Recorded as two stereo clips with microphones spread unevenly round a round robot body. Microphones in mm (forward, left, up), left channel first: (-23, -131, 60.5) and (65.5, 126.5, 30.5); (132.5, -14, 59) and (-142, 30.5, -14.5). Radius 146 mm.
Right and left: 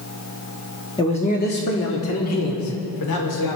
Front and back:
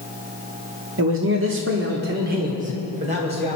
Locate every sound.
1.0 s a man speaking: 175° left, 1.4 m; by 3.6 s 125° right, 3 m